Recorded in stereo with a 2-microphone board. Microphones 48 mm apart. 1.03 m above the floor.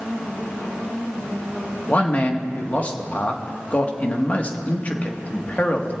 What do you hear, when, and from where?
1.9 s a man speaking: 30° left (ahead or behind), 1.5 m